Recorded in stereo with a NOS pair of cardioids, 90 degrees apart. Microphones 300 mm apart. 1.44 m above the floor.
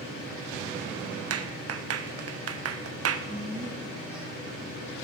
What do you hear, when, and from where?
1.3 s a clap: 50° right, 1.1 m
3.3 s a woman speaking: 5° right, 2.5 m